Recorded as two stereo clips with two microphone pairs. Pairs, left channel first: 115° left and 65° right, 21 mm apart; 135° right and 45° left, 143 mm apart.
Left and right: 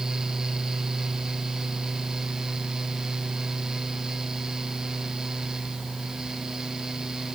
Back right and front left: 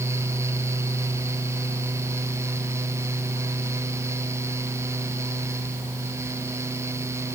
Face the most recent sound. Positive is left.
No sound to turn to.